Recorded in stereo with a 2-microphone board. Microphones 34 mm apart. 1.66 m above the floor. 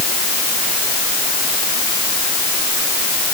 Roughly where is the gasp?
I don't hear a gasp.